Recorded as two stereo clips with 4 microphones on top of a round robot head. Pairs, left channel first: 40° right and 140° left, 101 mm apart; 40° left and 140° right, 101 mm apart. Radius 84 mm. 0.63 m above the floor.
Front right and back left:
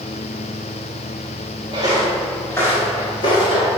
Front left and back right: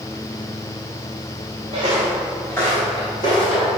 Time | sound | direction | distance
1.7 | footsteps | straight behind | 0.7 m